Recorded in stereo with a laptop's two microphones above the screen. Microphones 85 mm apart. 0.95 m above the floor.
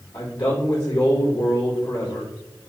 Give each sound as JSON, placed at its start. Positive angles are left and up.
{"t": 0.1, "sound": "a man speaking", "side_deg": 55, "distance_m": 2.0}